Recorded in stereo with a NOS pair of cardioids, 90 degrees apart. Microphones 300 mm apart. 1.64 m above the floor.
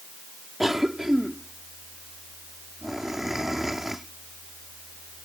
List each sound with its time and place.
0.6 s a cough: straight ahead